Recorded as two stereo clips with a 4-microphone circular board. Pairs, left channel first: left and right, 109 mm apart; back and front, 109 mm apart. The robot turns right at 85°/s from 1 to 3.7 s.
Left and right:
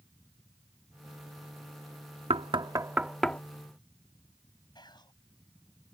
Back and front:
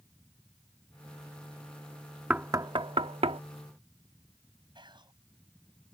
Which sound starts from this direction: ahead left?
Whispering, at 4.8 s.